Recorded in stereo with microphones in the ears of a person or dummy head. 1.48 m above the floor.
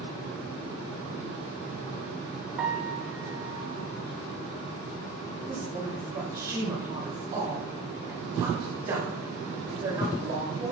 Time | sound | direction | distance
2.6 | a piano | 10° right (ahead or behind) | 0.8 m
5.5 | a woman speaking | 40° right (ahead or behind) | 3.5 m